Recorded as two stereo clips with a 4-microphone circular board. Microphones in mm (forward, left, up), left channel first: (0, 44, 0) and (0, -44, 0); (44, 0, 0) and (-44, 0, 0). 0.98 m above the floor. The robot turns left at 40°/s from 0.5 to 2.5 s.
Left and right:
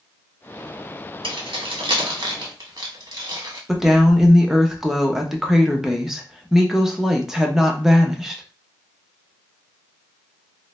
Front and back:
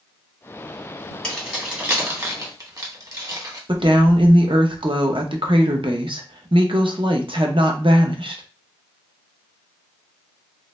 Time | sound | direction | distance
1.2 | keys jangling | 80° right | 0.9 m
3.7 | a woman speaking | 175° right | 0.6 m